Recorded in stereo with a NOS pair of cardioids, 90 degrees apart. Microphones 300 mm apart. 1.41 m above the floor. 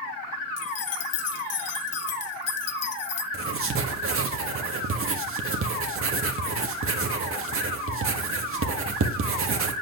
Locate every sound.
0.6 s keys jangling: 60° left, 1.3 m
3.3 s writing: 45° right, 1.6 m